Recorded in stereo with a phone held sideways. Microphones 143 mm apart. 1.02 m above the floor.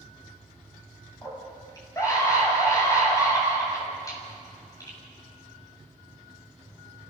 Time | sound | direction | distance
1.2 | a scream | 20° left (ahead or behind) | 7.5 m